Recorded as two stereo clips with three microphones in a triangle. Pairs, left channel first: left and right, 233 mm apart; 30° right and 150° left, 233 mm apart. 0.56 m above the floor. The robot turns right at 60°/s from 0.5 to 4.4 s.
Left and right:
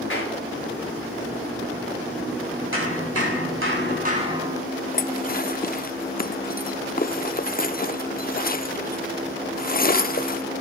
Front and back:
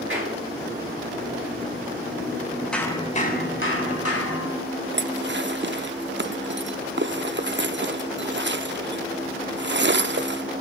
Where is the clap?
120° left, 7 m.